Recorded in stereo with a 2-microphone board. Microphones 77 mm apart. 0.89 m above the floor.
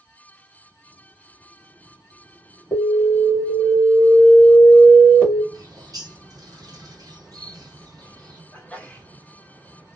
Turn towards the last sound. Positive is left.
turn(degrees=20)  # may be behind; listen again after turning